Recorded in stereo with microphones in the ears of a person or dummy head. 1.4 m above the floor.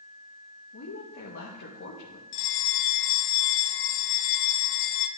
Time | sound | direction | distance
0.7 | a woman speaking | 75° left (ahead or behind) | 1.6 m
2.3 | a bell | 55° left (ahead or behind) | 0.6 m